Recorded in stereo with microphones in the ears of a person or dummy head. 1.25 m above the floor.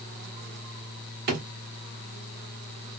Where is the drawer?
55° right (ahead or behind), 1.3 m.